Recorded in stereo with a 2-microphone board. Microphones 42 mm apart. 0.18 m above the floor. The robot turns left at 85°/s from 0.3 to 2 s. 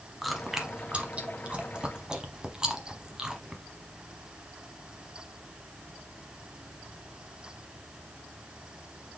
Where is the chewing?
Centre (ahead or behind), 0.8 m; by 3.6 s 15° right (ahead or behind), 0.8 m.